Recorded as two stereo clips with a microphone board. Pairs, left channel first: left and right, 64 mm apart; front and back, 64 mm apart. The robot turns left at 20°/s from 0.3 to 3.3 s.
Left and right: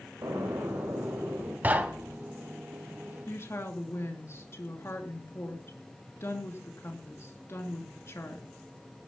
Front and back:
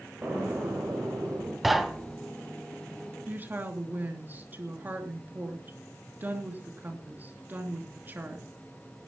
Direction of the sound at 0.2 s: 115° right.